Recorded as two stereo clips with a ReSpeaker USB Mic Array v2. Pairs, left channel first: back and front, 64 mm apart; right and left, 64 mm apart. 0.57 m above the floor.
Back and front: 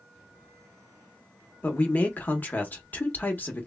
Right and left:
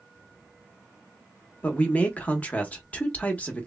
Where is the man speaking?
140° right, 0.8 m.